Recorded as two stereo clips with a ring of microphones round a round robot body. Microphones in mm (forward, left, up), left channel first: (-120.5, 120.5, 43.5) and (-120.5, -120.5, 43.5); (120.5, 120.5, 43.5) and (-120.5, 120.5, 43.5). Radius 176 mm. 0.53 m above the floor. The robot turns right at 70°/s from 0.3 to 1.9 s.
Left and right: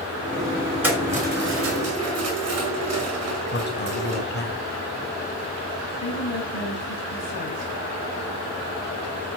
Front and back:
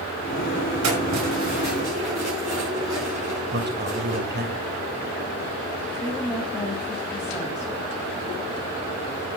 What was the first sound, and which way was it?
Keys jangling, 170° right.